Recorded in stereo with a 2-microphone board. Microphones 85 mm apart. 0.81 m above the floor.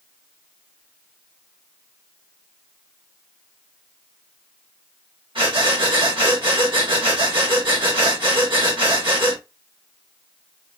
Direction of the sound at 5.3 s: 70° right (ahead or behind).